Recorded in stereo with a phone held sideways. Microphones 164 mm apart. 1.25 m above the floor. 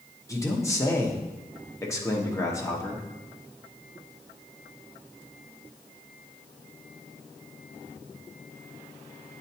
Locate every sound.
0.3 s a man speaking: 20° left (ahead or behind), 1.0 m